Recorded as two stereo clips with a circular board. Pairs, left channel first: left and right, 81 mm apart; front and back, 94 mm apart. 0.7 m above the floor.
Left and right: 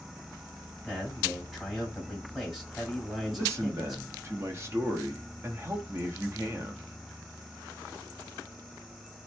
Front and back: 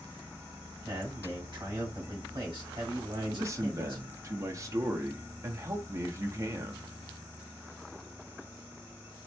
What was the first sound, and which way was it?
A man speaking, straight behind.